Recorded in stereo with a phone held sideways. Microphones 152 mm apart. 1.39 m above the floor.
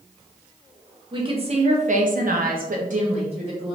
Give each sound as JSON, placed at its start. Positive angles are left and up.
{"t": 1.1, "sound": "a woman speaking", "side_deg": -35, "distance_m": 0.9}